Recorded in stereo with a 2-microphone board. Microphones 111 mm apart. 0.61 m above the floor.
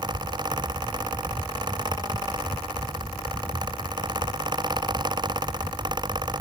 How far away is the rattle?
I don't hear a rattle.